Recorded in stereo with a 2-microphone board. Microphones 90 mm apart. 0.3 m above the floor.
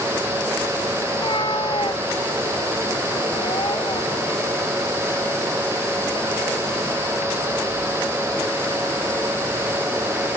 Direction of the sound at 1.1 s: 65° left (ahead or behind).